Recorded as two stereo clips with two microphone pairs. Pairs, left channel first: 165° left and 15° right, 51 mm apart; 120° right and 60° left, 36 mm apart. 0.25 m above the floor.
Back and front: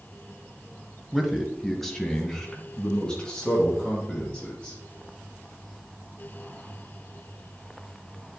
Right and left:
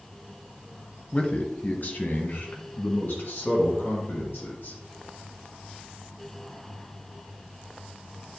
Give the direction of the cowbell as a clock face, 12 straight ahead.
No cowbell in this recording.